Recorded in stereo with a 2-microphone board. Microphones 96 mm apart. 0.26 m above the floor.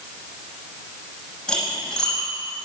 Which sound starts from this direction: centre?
Cutlery clinking, at 1.5 s.